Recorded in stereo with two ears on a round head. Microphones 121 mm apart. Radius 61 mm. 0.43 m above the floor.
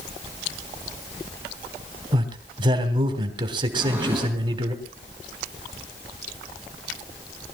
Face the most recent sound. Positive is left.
turn(degrees=-15)  # may be behind; listen again after turning